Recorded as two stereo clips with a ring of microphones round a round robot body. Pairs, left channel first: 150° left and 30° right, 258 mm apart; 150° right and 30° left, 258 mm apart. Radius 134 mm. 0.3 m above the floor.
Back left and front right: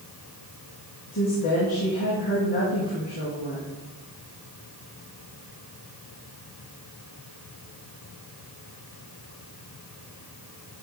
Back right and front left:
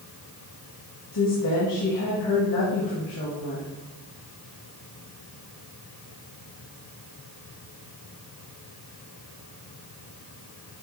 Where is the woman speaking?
155° right, 3.5 m.